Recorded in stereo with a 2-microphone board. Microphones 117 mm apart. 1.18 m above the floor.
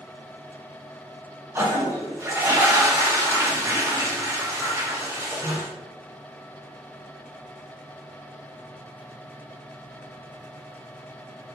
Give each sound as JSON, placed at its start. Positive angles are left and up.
{"t": 1.6, "sound": "a toilet flushing", "side_deg": -25, "distance_m": 0.9}